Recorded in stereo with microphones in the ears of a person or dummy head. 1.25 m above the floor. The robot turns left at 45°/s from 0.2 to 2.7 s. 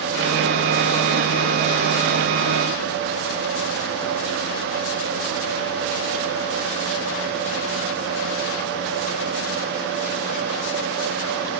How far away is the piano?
No piano in this recording.